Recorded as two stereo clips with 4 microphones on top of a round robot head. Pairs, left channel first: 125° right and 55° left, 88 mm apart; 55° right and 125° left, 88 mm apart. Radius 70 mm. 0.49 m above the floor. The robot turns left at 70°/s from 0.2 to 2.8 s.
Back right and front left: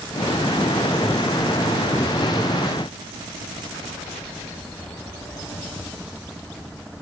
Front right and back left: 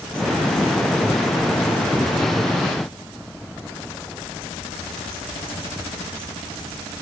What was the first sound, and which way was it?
Only background noise.